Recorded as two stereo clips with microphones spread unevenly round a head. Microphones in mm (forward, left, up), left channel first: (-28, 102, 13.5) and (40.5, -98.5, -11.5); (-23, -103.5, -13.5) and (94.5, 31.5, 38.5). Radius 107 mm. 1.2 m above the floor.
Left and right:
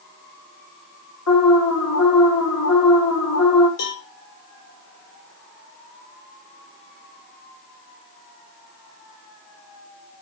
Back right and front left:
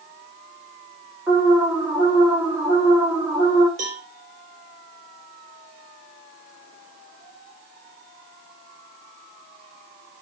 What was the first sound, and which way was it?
An alarm, 130° left.